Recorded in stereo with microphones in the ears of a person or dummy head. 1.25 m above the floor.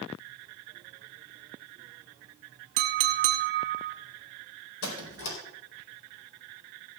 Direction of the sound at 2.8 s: 45° right (ahead or behind).